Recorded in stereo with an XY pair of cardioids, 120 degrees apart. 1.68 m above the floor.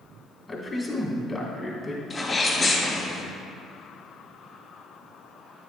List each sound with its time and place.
0.5 s a man speaking: 25° left, 2.5 m
2.1 s a sneeze: 30° left, 2.5 m